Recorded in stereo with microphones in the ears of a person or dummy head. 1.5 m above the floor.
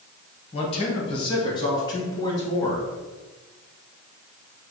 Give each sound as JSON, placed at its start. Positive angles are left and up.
{"t": 0.5, "sound": "a man speaking", "side_deg": 35, "distance_m": 1.4}